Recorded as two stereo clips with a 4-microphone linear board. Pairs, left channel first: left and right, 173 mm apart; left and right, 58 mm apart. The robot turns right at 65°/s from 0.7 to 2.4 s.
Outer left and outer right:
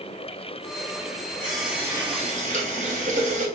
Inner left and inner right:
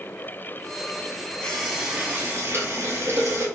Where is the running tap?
170° left, 1.6 m; by 3.5 s 125° right, 1.6 m.